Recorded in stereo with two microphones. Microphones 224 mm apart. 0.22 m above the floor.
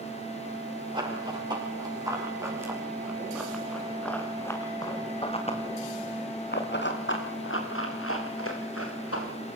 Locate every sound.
0.9 s running footsteps: 20° right (ahead or behind), 9 m; by 9.3 s 85° left, 7 m